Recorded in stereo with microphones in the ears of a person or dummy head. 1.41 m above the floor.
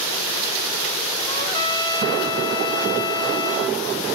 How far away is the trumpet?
About 1.2 m.